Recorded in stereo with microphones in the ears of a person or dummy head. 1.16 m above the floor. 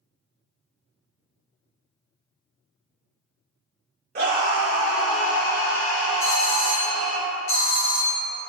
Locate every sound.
4.2 s a scream: 45° right (ahead or behind), 0.8 m; by 7.2 s 70° left (ahead or behind), 2 m
6.2 s a doorbell: 65° left (ahead or behind), 1.0 m